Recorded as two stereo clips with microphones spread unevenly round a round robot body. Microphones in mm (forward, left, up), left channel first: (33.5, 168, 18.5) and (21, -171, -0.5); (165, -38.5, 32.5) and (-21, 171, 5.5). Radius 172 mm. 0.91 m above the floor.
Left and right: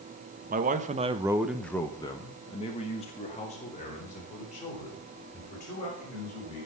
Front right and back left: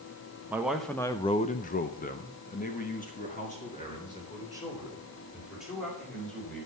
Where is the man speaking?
150° right, 1.1 m; by 6.7 s 20° left, 5.5 m.